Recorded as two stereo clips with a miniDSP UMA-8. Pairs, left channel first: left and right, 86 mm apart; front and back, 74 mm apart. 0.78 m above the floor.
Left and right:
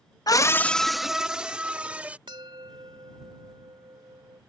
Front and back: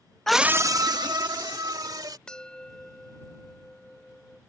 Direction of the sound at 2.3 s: 75° right.